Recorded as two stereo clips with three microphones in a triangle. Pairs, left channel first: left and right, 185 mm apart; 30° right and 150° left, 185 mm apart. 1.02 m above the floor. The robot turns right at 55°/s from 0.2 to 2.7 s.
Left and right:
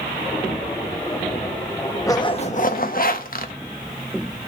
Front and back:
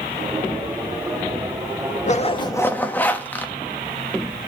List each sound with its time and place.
2.1 s a zipper: 15° left, 1.1 m; by 3.5 s 50° left, 1.1 m